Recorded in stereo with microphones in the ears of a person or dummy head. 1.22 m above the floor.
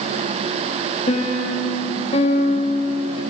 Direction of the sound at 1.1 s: 30° left (ahead or behind).